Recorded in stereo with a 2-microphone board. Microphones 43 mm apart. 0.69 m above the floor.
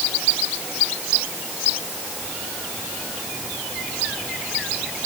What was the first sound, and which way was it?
Only background noise.